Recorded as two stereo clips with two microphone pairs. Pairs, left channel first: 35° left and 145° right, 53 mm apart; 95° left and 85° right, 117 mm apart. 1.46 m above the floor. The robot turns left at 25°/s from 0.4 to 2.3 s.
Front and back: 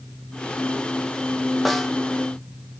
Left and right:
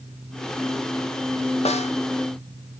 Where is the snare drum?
120° left, 0.7 m; by 1.9 s 115° left, 0.7 m.